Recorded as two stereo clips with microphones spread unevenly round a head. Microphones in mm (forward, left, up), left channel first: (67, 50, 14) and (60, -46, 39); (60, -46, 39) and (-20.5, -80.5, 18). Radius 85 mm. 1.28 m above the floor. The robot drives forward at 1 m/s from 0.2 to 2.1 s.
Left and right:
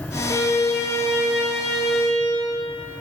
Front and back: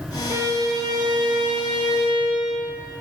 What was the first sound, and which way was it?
A violin, 145° left.